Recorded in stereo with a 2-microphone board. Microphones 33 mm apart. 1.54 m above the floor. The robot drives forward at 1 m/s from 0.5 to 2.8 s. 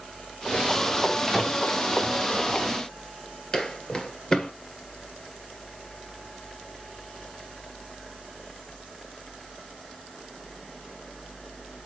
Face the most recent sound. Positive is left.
turn(degrees=20)  # may be behind; listen again after turning